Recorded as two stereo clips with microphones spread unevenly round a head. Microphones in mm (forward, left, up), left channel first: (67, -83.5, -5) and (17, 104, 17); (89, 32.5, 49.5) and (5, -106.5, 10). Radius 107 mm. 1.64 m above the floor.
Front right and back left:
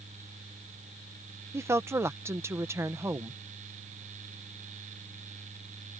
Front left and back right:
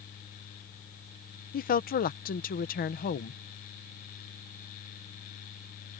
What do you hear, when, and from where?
1.5 s a woman speaking: 30° left